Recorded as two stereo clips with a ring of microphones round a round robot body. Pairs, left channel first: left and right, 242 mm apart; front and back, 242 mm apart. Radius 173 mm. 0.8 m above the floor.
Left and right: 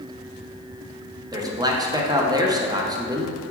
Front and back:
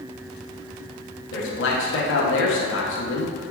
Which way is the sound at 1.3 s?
20° right.